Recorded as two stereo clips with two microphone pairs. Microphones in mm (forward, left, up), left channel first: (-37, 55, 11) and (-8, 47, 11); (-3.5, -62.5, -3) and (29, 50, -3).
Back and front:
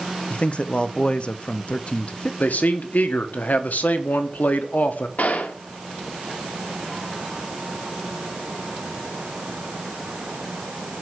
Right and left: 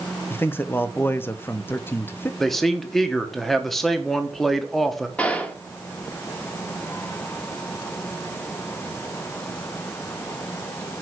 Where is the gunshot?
175° left, 1.2 m.